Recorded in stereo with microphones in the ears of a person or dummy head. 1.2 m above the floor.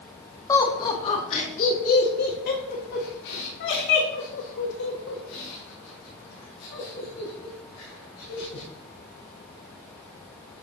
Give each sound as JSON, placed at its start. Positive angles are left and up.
{"t": 0.5, "sound": "laughter", "side_deg": 15, "distance_m": 2.0}